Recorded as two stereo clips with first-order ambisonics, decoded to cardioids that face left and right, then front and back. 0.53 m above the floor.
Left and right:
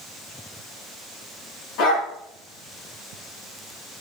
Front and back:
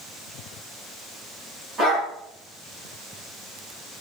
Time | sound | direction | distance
1.8 | a dog barking | 110° left | 6 m